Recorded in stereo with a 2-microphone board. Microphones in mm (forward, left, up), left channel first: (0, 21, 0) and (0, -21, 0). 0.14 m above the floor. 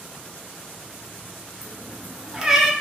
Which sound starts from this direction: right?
A cat meowing, at 1.6 s.